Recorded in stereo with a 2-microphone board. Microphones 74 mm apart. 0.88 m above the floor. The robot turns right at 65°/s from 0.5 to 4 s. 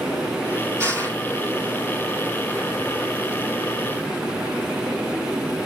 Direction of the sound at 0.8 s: 35° right (ahead or behind).